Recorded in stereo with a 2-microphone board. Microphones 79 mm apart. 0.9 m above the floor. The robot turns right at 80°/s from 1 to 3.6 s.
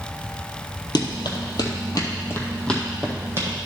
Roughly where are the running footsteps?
Left.